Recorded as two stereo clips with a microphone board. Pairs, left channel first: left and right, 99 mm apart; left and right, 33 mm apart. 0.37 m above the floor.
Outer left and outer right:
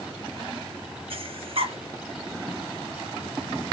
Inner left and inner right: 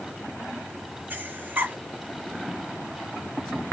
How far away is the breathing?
About 0.5 m.